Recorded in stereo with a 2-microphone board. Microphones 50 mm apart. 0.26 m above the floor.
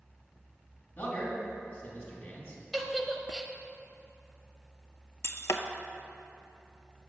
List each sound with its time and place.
1.0 s a man speaking: 40° left (ahead or behind), 2.0 m
2.7 s a giggle: centre (ahead or behind), 0.7 m
5.2 s breaking glass: 75° left (ahead or behind), 0.5 m